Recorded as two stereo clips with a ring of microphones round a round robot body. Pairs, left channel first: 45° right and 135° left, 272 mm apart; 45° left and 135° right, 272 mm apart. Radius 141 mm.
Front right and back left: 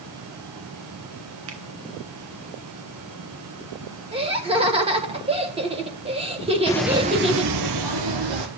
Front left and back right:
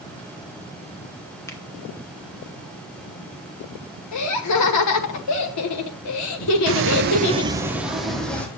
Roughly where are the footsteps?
Behind right.